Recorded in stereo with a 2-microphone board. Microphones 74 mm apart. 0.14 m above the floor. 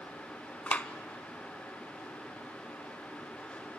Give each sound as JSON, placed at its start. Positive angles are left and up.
{"t": 0.7, "sound": "a clap", "side_deg": 20, "distance_m": 0.8}